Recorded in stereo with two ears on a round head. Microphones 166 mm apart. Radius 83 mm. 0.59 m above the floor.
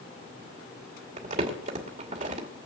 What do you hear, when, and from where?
1.2 s crumpling: 45° right (ahead or behind), 2.5 m